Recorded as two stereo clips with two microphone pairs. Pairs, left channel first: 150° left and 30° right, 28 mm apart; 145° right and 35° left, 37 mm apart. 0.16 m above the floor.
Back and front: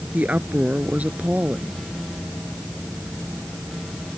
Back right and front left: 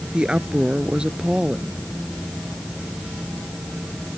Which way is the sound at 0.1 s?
25° right.